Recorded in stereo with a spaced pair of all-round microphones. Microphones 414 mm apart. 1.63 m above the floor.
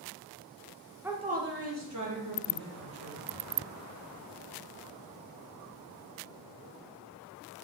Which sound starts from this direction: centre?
A woman speaking, at 1.0 s.